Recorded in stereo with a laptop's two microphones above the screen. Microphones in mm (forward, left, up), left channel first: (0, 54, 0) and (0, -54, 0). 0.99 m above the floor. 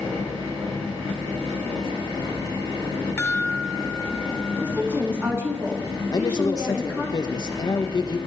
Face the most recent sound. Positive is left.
turn(degrees=40)  # may be behind; listen again after turning